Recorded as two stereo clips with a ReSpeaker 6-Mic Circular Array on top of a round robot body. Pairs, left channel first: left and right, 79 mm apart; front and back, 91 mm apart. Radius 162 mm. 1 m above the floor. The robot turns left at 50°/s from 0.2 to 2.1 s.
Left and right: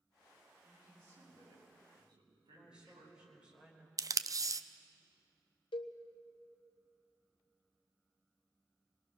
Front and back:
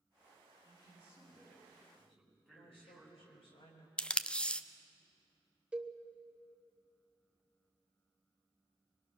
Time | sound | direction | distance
0.6 | a man speaking | 10° right | 7.5 m
2.5 | a woman speaking | 10° right | 4.5 m
4.0 | tape being pulled | 75° right | 0.8 m
5.7 | a cowbell | 100° left | 0.7 m